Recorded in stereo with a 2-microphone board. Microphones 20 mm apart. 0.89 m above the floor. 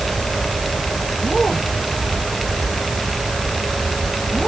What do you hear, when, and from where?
Only background noise.